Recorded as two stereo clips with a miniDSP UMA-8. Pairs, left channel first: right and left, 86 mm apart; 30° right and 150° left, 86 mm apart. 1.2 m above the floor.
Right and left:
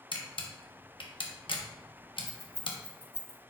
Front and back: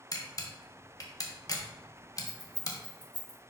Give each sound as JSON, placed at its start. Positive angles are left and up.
{"t": 0.1, "sound": "a camera shutter", "azimuth_deg": -75, "distance_m": 1.1}
{"t": 2.3, "sound": "keys jangling", "azimuth_deg": 145, "distance_m": 3.0}